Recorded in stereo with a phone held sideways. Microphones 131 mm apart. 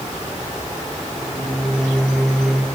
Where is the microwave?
Centre (ahead or behind), 2.5 m.